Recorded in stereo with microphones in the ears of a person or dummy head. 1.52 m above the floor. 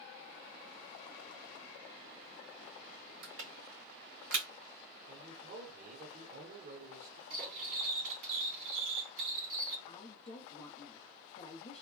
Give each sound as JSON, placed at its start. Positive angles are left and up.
{"t": 3.2, "sound": "crushing", "side_deg": -70, "distance_m": 1.5}
{"t": 5.1, "sound": "a man speaking", "side_deg": -50, "distance_m": 1.0}
{"t": 7.3, "sound": "cutlery clinking", "side_deg": -60, "distance_m": 1.5}
{"t": 9.9, "sound": "a woman speaking", "side_deg": 35, "distance_m": 0.6}